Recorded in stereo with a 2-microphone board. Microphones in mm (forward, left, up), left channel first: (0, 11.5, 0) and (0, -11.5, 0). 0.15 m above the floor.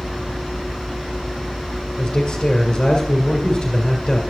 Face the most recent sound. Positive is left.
turn(degrees=25)  # may be behind; listen again after turning